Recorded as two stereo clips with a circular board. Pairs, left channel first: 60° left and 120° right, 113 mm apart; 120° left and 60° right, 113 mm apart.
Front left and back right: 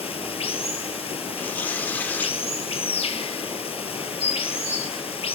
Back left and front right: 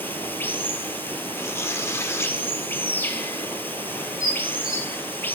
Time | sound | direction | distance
0.0 | running water | 50° left | 0.7 m
1.4 | tearing paper | 105° left | 0.6 m
4.2 | dishes clattering | 60° left | 2.5 m